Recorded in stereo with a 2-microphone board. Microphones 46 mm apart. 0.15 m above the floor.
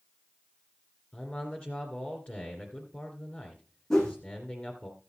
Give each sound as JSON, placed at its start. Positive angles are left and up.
{"t": 1.1, "sound": "a man speaking", "side_deg": 25, "distance_m": 2.5}
{"t": 3.9, "sound": "a whoosh", "side_deg": 10, "distance_m": 3.5}